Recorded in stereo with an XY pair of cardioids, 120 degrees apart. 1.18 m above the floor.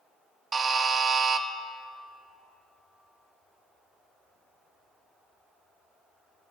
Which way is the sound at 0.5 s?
30° right.